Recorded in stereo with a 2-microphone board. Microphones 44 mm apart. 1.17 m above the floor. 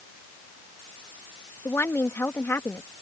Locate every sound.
1.6 s a woman speaking: 70° left (ahead or behind)